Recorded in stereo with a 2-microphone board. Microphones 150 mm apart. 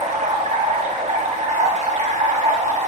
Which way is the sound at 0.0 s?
55° right (ahead or behind).